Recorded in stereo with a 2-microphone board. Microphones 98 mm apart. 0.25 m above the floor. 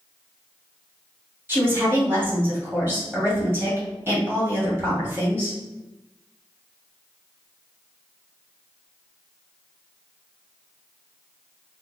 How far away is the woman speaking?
About 1.6 m.